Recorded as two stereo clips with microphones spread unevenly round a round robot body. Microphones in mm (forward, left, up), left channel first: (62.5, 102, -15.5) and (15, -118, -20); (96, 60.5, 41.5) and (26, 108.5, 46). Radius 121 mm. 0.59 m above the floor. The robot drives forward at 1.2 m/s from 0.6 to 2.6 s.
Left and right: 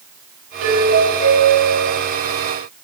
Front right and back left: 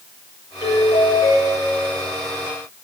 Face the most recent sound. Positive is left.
turn(degrees=-105)